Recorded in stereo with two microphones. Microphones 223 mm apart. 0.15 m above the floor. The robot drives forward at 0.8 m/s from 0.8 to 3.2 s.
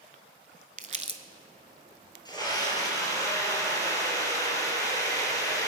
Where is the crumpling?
40° right (ahead or behind), 0.7 m; by 1.2 s 30° right (ahead or behind), 1.0 m.